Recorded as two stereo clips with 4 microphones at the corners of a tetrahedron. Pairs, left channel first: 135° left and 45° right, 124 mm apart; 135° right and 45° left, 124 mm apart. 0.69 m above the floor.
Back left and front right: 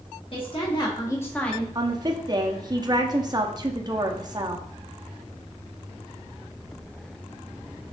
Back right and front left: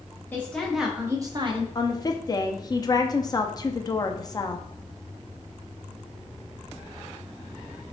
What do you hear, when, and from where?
0.3 s a woman speaking: 155° left, 1.0 m; by 1.6 s 50° left, 0.9 m
1.8 s a woman speaking: 85° right, 0.6 m